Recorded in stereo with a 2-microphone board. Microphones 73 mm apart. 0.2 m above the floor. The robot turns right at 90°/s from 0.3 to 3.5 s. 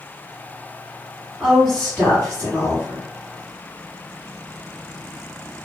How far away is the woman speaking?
About 1.8 m.